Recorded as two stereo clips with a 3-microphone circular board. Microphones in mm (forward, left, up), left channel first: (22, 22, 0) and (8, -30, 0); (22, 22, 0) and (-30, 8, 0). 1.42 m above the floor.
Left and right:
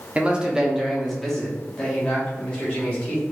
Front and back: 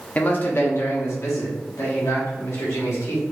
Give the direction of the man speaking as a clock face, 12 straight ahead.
1 o'clock.